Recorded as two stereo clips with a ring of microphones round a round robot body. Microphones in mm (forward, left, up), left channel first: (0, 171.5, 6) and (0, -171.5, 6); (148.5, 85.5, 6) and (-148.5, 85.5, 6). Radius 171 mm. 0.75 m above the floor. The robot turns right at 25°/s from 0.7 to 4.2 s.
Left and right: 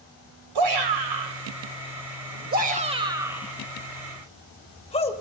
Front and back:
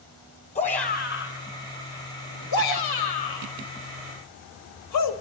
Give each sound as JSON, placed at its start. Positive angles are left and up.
{"t": 0.6, "sound": "a shout", "azimuth_deg": -70, "distance_m": 4.5}